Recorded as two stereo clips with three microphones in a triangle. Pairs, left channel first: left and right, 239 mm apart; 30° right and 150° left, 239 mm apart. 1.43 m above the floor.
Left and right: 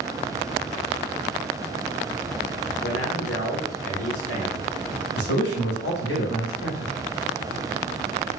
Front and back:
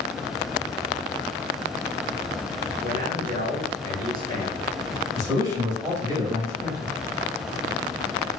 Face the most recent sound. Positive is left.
turn(degrees=75)